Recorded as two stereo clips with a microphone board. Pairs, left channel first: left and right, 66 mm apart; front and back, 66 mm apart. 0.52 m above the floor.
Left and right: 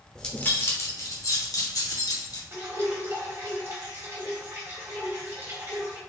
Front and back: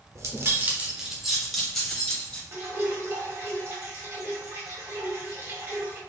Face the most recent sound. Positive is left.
turn(degrees=-135)